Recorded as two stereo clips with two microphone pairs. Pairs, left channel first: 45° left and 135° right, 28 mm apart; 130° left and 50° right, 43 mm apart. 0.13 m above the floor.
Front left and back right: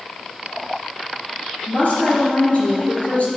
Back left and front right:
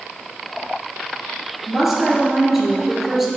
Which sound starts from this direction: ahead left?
A woman speaking, at 1.7 s.